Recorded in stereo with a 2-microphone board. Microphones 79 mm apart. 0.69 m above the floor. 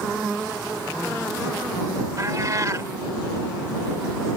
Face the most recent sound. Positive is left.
turn(degrees=-45)  # may be behind; listen again after turning